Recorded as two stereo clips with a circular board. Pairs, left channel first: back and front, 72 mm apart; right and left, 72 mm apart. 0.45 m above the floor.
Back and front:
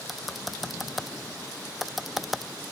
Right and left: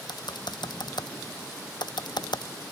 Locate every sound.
0.1 s typing on a keyboard: 90° right